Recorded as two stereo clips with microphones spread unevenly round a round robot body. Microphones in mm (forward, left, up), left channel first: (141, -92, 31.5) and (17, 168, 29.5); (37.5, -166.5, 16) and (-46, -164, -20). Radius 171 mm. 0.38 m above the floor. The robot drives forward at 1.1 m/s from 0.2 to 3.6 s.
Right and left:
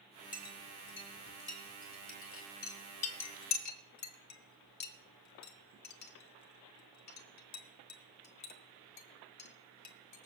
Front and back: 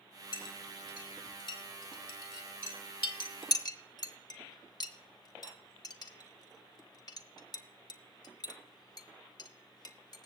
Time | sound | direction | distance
0.3 | a clink | 10° right | 4.5 m